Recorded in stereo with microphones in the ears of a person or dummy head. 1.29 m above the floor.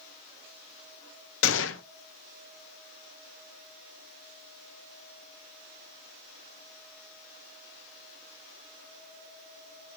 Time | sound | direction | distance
1.4 | a gunshot | 60° left (ahead or behind) | 0.6 m